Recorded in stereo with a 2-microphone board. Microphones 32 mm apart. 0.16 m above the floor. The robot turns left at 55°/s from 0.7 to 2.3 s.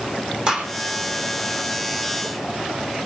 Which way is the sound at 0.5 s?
30° right (ahead or behind).